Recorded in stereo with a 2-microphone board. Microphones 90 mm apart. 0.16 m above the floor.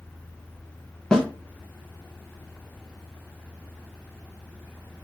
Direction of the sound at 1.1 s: 10° left (ahead or behind).